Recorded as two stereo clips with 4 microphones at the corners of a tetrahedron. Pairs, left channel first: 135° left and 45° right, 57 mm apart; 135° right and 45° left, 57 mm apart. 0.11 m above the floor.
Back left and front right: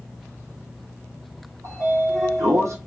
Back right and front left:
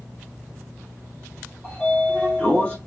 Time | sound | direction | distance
1.6 | a sliding door | 60° right | 1.3 m